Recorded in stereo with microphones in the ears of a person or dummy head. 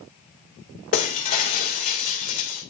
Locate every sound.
0.9 s breaking glass: 45° left (ahead or behind), 1.4 m